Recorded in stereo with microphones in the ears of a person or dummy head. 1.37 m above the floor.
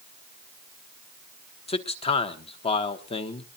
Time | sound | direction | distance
1.7 | a man speaking | 30° left (ahead or behind) | 1.1 m